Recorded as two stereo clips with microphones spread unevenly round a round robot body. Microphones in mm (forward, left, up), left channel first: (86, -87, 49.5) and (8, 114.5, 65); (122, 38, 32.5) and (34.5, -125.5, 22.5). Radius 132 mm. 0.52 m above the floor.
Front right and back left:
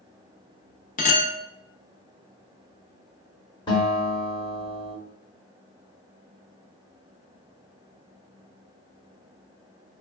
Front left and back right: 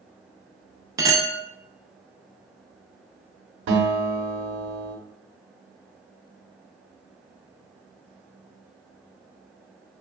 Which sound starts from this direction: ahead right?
A clink, at 1.0 s.